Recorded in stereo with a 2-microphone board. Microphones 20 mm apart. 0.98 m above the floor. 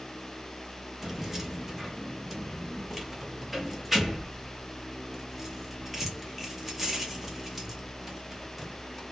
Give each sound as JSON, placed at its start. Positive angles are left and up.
{"t": 1.0, "sound": "keys jangling", "side_deg": -15, "distance_m": 0.8}